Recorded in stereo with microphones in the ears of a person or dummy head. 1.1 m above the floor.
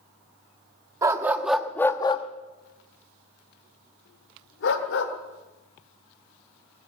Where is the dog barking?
15° right (ahead or behind), 0.9 m; by 5.1 s 65° left (ahead or behind), 1.8 m.